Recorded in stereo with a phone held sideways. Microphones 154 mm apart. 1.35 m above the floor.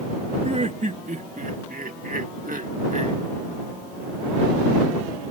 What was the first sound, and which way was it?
Laughter, 50° right (ahead or behind).